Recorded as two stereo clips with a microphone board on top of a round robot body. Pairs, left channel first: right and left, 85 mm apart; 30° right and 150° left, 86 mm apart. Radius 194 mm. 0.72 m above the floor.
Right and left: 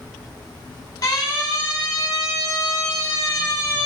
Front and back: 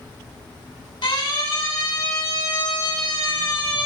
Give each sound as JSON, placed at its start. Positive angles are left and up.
{"t": 1.0, "sound": "a siren", "azimuth_deg": -45, "distance_m": 9.5}